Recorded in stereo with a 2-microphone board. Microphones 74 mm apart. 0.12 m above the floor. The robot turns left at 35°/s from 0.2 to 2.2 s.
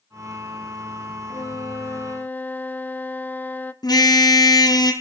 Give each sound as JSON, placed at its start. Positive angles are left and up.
{"t": 1.3, "sound": "a flute", "azimuth_deg": 55, "distance_m": 0.7}
{"t": 3.8, "sound": "a car horn", "side_deg": 65, "distance_m": 2.5}